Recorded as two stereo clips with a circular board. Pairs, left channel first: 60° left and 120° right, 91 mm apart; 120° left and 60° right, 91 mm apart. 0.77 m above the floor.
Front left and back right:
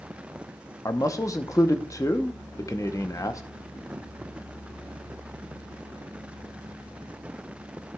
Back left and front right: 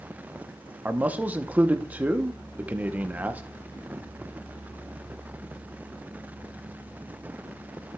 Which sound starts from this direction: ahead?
A man speaking, at 0.8 s.